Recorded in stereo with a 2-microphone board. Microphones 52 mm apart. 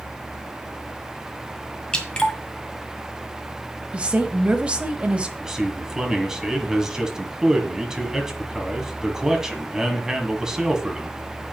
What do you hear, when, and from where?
1.9 s dripping: 20° left (ahead or behind), 1.9 m
3.9 s a woman speaking: 25° right (ahead or behind), 1.2 m
5.4 s a man speaking: 10° right (ahead or behind), 2 m